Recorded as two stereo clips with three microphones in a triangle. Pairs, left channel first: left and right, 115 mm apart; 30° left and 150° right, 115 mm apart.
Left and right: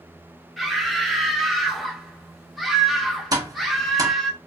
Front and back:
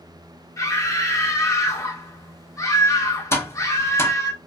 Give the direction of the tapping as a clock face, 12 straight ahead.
1 o'clock.